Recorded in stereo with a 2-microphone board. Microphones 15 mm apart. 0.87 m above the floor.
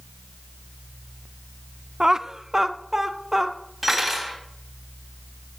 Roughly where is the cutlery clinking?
Centre.